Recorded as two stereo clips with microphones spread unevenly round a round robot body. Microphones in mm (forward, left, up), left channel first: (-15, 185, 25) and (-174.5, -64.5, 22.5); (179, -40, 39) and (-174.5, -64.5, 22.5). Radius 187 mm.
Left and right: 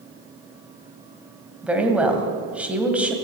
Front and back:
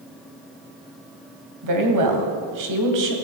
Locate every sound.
1.6 s a woman speaking: 150° left, 2.5 m